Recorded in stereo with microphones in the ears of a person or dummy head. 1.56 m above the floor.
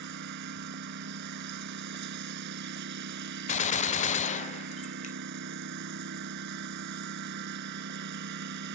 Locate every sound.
0.0 s a lawn mower: 55° right (ahead or behind)
3.5 s a gunshot: 35° left (ahead or behind)